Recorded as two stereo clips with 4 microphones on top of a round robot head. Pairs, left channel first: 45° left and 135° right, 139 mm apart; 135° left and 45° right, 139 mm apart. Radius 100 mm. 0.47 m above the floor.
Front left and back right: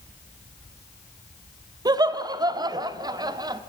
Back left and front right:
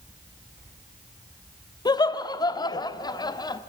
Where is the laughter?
Straight behind, 0.8 m.